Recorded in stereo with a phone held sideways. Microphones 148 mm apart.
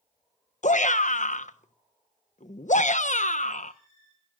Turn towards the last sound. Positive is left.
turn(degrees=60)  # may be behind; listen again after turning